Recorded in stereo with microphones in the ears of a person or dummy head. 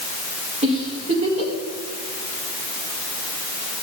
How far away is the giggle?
About 2.0 m.